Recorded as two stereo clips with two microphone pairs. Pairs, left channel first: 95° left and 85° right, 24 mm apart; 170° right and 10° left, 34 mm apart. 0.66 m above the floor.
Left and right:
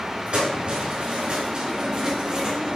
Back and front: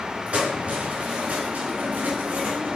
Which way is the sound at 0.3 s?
45° right.